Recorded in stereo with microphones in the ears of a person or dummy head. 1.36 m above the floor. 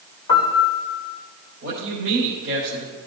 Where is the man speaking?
55° right (ahead or behind), 4.5 m.